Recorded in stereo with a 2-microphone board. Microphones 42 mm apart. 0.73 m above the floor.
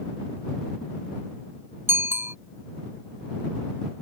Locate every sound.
1.9 s a bicycle bell: 80° right